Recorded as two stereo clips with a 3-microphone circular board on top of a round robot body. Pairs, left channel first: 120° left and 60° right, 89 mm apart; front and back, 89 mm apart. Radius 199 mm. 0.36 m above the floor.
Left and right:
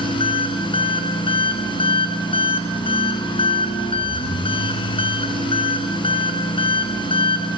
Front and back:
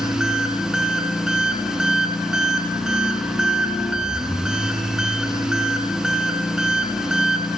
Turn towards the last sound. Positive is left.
turn(degrees=95)